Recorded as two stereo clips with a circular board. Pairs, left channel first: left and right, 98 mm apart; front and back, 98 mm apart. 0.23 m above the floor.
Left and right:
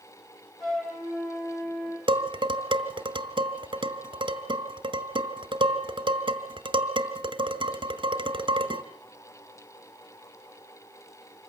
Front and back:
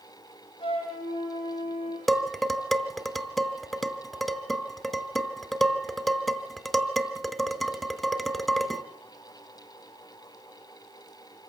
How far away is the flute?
About 7 m.